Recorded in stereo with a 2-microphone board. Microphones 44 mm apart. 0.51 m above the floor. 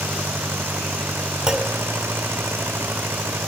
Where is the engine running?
70° right (ahead or behind).